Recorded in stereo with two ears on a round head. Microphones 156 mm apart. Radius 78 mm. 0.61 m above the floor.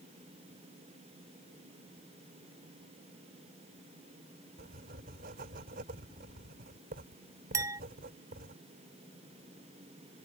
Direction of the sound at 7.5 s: 15° right (ahead or behind).